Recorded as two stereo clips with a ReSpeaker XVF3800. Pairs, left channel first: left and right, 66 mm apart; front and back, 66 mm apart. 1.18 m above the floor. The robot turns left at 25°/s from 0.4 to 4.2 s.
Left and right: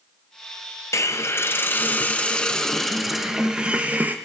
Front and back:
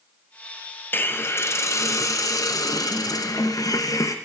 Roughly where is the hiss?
Ahead left.